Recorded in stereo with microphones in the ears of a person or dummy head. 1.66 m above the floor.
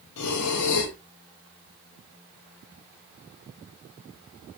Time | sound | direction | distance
0.2 | breathing | 80° left | 0.5 m